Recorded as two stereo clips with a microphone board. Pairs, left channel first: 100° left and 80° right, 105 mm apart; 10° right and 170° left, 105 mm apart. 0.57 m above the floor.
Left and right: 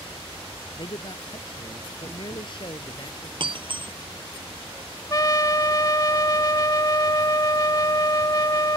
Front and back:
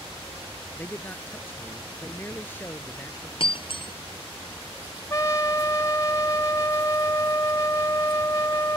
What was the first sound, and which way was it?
A man speaking, 60° left.